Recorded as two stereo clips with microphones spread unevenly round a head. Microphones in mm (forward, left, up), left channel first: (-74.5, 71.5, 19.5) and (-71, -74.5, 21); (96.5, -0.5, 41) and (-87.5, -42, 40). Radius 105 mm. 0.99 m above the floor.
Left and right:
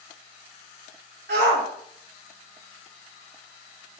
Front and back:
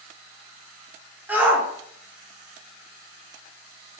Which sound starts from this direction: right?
A shout, at 1.3 s.